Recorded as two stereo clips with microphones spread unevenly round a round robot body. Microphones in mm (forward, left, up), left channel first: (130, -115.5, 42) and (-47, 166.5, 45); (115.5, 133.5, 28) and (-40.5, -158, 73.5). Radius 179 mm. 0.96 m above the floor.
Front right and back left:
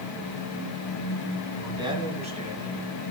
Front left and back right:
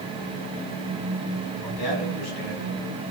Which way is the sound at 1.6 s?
45° left.